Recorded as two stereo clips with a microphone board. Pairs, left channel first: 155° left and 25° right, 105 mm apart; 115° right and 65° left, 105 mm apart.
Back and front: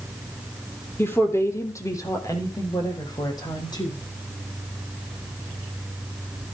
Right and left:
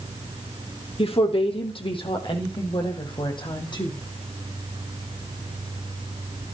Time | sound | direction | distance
1.0 | a woman speaking | 135° right | 4.5 m